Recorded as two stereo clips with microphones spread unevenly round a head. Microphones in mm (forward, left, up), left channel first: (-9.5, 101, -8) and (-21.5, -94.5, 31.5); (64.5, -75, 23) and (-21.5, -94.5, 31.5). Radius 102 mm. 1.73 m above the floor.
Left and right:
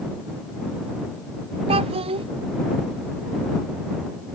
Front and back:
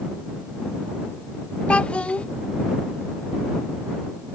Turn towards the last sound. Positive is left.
turn(degrees=-65)